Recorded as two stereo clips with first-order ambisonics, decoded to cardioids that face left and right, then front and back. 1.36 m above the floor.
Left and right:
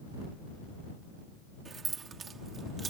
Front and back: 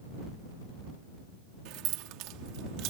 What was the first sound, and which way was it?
Keys jangling, 160° right.